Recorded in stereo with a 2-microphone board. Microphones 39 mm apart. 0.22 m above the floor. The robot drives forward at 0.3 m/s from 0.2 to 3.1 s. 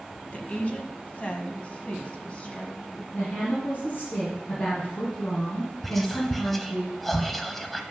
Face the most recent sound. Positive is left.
turn(degrees=5)  # may be behind; listen again after turning